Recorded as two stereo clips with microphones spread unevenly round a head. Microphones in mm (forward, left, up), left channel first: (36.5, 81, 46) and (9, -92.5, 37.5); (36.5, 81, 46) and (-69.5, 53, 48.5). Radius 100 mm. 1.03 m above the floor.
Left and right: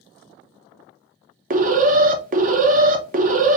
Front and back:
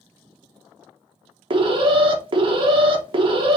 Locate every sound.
1.5 s an alarm: 130° right, 0.8 m